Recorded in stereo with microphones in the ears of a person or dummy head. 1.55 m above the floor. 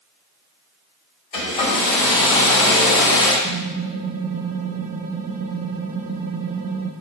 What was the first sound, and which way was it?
A hair dryer, 40° left (ahead or behind).